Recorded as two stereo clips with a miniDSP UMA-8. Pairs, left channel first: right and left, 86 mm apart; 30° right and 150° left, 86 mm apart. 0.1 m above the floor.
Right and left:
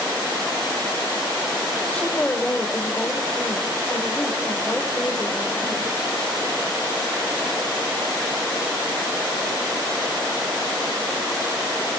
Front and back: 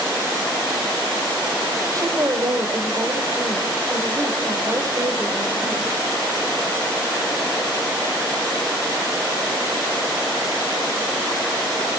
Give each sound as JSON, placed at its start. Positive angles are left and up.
{"t": 1.9, "sound": "a woman speaking", "azimuth_deg": -165, "distance_m": 3.0}